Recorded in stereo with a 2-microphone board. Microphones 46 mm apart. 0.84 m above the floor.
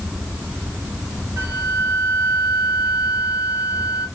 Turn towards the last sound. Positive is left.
turn(degrees=-70)  # may be behind; listen again after turning